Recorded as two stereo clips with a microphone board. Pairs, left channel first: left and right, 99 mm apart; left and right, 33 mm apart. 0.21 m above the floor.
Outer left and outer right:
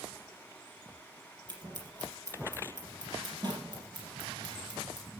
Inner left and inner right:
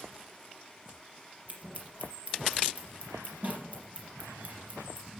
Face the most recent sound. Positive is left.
turn(degrees=-45)  # may be behind; listen again after turning